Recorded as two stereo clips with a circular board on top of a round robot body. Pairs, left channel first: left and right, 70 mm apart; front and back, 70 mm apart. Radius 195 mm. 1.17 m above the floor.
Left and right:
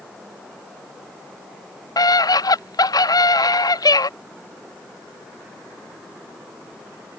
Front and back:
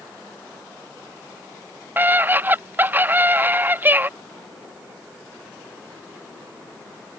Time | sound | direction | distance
2.0 | a scream | 115° left | ?